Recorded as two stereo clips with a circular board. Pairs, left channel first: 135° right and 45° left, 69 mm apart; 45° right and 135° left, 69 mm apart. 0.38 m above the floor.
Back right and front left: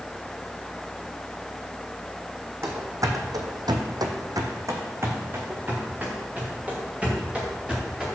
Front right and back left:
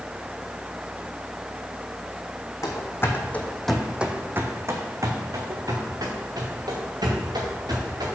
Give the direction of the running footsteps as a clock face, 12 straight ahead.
12 o'clock.